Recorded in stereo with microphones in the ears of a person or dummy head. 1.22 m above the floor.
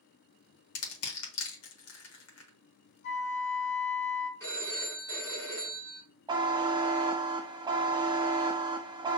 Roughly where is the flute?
Left.